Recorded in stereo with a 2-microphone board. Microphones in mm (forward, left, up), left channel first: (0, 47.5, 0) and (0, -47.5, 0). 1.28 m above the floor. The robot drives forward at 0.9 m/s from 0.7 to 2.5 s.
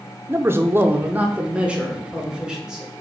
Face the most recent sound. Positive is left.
turn(degrees=-10)  # may be behind; listen again after turning